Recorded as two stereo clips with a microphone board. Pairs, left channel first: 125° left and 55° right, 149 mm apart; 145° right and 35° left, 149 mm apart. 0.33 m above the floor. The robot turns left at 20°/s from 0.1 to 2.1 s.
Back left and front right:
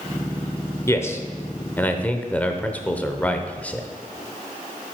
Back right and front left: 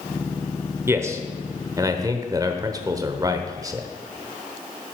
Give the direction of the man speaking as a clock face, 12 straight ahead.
9 o'clock.